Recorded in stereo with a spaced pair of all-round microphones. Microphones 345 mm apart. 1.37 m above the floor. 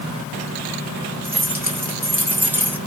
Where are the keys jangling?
5° right (ahead or behind), 3 m.